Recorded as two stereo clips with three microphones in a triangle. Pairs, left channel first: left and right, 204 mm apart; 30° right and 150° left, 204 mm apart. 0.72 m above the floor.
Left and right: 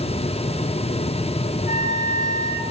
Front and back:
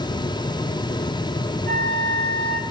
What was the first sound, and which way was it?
A flute, 130° left.